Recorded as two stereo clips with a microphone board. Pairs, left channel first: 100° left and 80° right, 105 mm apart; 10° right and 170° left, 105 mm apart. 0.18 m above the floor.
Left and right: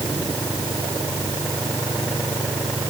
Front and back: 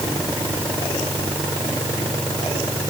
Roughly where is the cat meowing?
I don't hear a cat meowing.